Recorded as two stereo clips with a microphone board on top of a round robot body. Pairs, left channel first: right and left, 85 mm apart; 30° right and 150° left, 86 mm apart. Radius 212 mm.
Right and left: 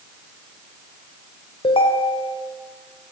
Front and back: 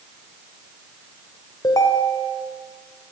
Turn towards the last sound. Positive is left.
turn(degrees=-80)